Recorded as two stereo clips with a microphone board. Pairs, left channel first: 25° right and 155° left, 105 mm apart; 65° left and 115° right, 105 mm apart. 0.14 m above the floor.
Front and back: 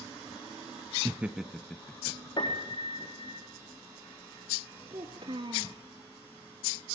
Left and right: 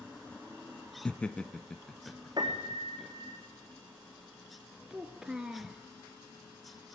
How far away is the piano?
About 4.5 m.